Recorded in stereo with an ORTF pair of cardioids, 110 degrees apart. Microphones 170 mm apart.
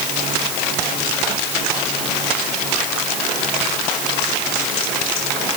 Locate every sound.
Only background noise.